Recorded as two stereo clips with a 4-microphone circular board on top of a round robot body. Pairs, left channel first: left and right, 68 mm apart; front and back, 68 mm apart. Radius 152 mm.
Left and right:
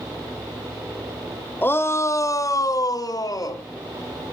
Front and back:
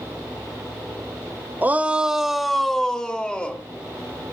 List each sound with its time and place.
1.6 s a shout: 130° left, 1.2 m; by 3.6 s 75° left, 2.5 m